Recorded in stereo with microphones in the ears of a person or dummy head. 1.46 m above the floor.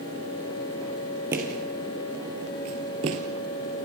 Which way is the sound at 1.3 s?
15° right (ahead or behind).